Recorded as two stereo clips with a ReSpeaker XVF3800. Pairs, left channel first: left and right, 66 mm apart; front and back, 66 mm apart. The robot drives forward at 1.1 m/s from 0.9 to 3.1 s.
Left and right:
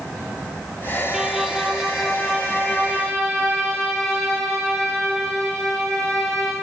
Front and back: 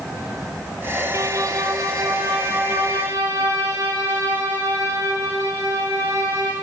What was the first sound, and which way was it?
A violin, 170° right.